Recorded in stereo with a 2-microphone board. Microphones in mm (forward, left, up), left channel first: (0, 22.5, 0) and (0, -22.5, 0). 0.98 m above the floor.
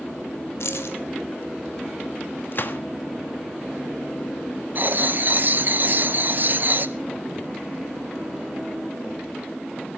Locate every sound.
0.6 s keys jangling: 80° left, 1.9 m
2.5 s a gunshot: 50° left (ahead or behind), 1.4 m
4.8 s writing: 45° right (ahead or behind), 0.7 m